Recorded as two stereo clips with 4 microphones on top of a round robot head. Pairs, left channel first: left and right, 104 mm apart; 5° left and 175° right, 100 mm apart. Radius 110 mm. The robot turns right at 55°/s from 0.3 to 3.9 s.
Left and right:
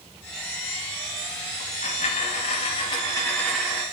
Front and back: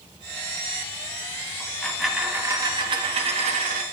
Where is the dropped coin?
70° left, 1.0 m; by 3.8 s 165° right, 1.0 m.